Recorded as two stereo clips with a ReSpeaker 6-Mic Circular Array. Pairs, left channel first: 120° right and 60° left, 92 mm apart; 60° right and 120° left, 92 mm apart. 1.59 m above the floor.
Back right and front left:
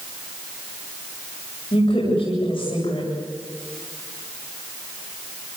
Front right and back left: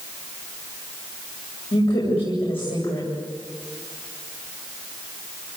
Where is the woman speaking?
85° right, 8.5 m.